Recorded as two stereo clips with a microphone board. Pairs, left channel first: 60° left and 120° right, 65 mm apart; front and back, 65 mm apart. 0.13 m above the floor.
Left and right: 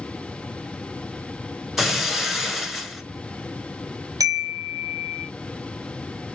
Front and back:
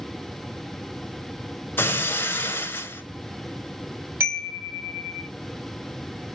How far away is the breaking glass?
About 0.9 m.